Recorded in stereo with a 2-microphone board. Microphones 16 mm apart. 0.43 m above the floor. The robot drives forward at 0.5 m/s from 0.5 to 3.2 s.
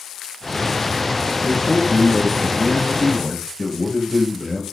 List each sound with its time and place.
1.4 s a man speaking: 10° right (ahead or behind), 9.5 m